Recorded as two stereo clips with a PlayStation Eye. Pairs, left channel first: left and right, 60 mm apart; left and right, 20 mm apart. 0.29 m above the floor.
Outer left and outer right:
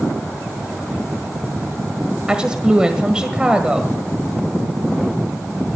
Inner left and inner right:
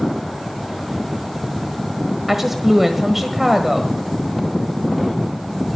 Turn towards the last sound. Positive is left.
turn(degrees=-15)  # may be behind; listen again after turning